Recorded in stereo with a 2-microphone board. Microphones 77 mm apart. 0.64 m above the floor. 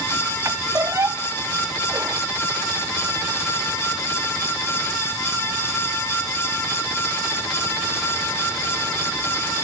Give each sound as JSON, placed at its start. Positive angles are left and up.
{"t": 0.5, "sound": "a squeak", "side_deg": -40}